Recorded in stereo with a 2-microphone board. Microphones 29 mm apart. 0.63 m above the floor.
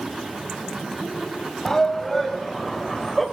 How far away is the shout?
About 2.5 m.